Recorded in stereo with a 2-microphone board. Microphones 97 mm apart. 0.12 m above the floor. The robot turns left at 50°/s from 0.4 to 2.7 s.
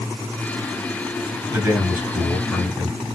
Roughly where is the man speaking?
Behind right.